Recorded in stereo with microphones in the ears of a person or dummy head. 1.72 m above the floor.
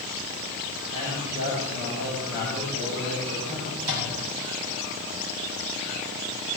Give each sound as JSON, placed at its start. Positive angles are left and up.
{"t": 0.9, "sound": "a man speaking", "side_deg": -70, "distance_m": 7.5}
{"t": 3.8, "sound": "a microwave", "side_deg": -80, "distance_m": 4.5}